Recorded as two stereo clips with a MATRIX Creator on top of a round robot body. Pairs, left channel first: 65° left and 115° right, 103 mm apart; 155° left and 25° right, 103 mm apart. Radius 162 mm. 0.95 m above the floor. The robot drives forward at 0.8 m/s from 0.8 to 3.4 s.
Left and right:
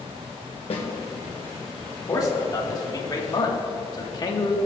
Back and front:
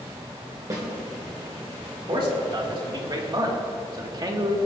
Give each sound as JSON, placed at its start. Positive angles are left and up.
{"t": 0.7, "sound": "a snare drum", "azimuth_deg": 35, "distance_m": 1.5}
{"t": 2.1, "sound": "a man speaking", "azimuth_deg": 15, "distance_m": 3.0}